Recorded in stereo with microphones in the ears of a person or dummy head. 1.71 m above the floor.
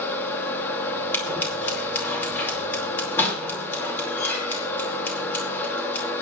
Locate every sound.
0.0 s a machine running: 15° left (ahead or behind), 2.5 m
1.1 s scissors: 10° left (ahead or behind), 4.5 m